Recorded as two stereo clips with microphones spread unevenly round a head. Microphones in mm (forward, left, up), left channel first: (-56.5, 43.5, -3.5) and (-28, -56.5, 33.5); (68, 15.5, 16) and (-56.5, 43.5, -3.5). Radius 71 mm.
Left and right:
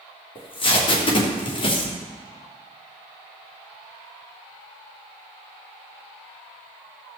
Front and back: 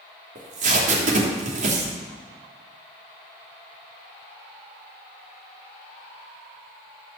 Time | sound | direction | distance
0.3 | tape being pulled | 145° left | 3 m